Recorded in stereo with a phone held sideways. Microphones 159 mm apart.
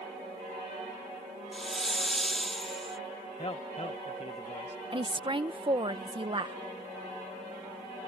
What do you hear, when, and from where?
1.5 s a hiss: centre (ahead or behind)
3.4 s a man speaking: 40° left (ahead or behind)
4.9 s a woman speaking: 30° right (ahead or behind)